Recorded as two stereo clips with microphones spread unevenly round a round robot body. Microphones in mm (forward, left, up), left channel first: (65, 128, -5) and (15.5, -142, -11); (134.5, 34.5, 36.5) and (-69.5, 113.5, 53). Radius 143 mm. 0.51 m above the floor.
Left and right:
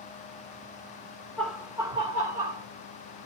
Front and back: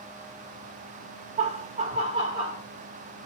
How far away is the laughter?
About 1.1 m.